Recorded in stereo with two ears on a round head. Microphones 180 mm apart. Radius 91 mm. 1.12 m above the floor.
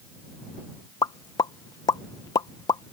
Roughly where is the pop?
Centre.